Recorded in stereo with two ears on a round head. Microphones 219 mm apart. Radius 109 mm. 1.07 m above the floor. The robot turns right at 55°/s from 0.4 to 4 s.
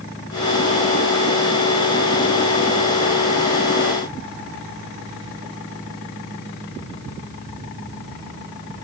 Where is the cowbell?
No cowbell in this recording.